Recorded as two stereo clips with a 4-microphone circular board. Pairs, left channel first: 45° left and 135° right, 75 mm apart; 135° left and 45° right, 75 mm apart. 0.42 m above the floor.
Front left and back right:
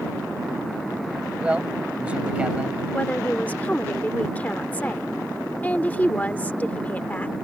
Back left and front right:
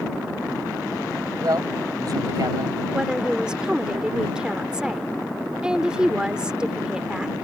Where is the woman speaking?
15° left.